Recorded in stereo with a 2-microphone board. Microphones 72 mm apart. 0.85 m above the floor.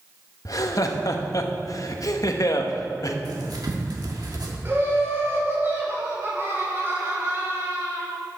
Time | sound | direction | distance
0.5 | laughter | 55° left (ahead or behind) | 0.8 m
3.2 | writing | 65° right (ahead or behind) | 1.4 m
4.7 | laughter | 35° right (ahead or behind) | 2.5 m